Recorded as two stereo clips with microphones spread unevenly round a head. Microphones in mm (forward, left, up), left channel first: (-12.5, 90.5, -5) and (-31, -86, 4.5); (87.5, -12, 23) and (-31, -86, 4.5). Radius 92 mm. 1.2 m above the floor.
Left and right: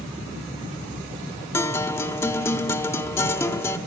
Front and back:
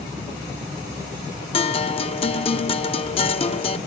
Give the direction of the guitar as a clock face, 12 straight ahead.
12 o'clock.